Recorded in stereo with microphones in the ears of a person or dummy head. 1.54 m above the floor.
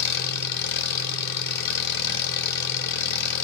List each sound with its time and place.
0.0 s an engine running: 55° left (ahead or behind), 1.0 m